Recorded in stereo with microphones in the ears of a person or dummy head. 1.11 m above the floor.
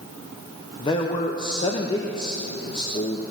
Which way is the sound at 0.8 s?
25° left (ahead or behind).